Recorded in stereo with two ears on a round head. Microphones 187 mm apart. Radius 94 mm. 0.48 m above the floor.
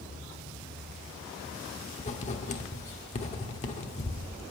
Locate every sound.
2.0 s writing: 35° left (ahead or behind), 1.2 m